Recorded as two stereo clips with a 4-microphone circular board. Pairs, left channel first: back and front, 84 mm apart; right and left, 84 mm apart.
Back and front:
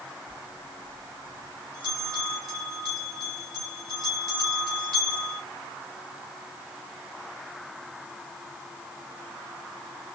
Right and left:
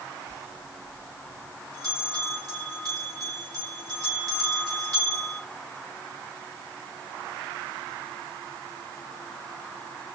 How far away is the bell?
About 2.5 m.